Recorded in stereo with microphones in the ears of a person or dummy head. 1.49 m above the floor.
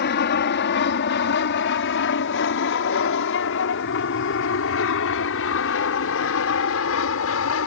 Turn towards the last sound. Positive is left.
turn(degrees=70)  # may be behind; listen again after turning